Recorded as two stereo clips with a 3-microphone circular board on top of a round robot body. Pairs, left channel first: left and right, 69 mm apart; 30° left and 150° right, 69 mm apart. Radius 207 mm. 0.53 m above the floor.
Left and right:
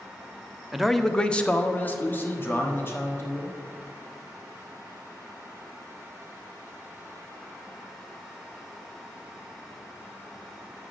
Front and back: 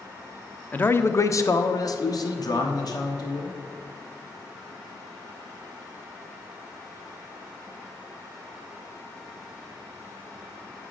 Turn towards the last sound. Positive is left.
turn(degrees=40)